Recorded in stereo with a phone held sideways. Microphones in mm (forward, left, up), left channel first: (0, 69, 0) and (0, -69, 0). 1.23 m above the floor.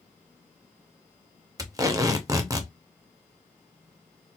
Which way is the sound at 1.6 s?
25° right (ahead or behind).